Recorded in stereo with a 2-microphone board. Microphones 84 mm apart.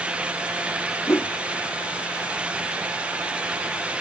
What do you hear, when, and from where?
1.1 s a whoosh: 30° left (ahead or behind)